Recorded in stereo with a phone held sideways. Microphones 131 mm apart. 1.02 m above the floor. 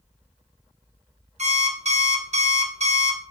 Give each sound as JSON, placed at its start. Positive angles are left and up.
{"t": 1.4, "sound": "an alarm clock", "side_deg": -60, "distance_m": 0.9}